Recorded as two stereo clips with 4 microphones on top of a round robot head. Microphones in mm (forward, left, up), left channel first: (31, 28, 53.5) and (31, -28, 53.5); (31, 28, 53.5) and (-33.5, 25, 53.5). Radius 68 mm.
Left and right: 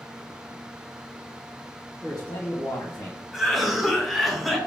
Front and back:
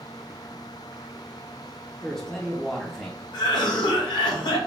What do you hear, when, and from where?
2.0 s a man speaking: 75° left, 1.2 m
3.3 s a cough: straight ahead, 1.1 m